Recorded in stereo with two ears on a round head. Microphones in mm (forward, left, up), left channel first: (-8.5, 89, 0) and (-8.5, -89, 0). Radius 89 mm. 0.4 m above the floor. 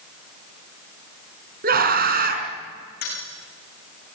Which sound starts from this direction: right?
A scream, at 1.6 s.